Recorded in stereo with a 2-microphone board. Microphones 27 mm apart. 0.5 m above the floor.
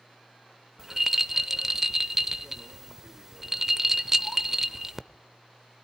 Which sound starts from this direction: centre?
A rattle, at 0.8 s.